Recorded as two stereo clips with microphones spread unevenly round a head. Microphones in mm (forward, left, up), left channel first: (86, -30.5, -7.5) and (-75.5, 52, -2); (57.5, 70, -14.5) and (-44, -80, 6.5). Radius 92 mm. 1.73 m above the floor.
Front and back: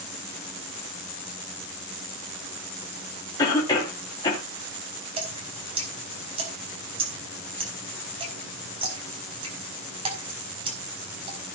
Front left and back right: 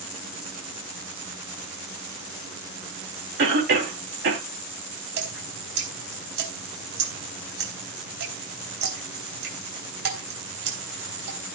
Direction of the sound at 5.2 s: 145° right.